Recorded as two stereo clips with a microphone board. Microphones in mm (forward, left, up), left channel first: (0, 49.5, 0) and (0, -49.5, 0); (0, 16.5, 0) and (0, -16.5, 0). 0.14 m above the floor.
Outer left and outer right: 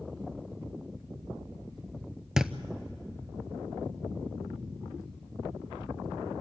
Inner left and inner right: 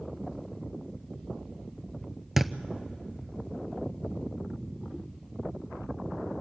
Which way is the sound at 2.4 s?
5° right (ahead or behind).